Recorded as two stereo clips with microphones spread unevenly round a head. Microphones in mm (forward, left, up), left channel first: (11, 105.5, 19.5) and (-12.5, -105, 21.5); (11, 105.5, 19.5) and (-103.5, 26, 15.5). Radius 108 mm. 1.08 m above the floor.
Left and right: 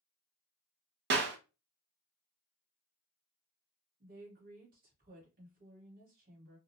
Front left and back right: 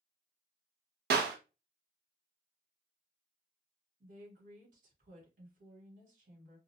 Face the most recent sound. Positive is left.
turn(degrees=-145)